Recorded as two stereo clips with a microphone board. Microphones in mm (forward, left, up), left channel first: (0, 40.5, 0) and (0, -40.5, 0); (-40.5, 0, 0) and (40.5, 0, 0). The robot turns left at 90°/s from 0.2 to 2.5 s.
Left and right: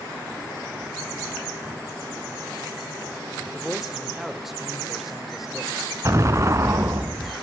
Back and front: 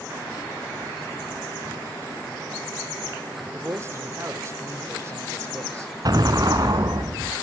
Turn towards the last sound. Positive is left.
turn(degrees=-35)